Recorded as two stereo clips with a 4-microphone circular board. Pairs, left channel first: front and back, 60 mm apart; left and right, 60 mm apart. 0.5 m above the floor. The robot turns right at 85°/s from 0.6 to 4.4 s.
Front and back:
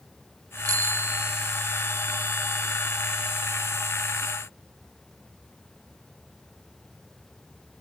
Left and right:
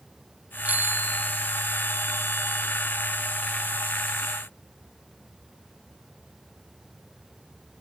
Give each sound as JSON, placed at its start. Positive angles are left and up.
{"t": 0.7, "sound": "a bicycle bell", "azimuth_deg": -155}